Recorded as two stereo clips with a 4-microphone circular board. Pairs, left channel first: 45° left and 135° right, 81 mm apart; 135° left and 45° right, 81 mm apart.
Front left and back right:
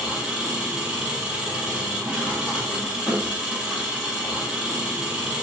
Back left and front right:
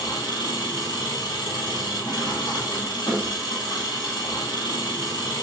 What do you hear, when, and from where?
0.0 s an engine running: 150° left, 1.2 m